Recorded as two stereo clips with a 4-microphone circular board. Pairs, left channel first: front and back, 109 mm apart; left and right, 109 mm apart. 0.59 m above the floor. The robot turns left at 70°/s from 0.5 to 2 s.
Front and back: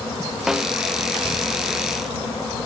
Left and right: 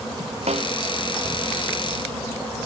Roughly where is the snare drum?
Right.